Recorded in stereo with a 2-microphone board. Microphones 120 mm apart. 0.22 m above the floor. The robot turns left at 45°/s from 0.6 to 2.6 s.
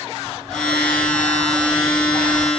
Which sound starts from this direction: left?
A bird, at 0.2 s.